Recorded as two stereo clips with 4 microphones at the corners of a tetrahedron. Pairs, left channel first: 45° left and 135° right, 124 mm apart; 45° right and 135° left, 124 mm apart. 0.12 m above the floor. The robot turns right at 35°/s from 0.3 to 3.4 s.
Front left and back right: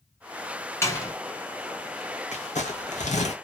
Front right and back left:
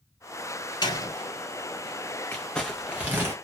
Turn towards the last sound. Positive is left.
turn(degrees=70)